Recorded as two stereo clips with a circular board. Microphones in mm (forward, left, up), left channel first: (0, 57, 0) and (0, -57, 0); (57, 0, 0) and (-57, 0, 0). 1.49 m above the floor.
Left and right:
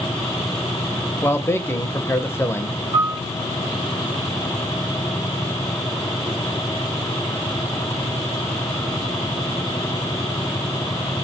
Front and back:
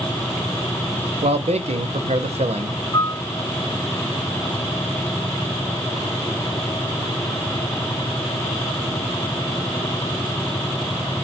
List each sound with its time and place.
1.2 s a man speaking: 160° left, 0.6 m
2.9 s a piano: 40° right, 1.1 m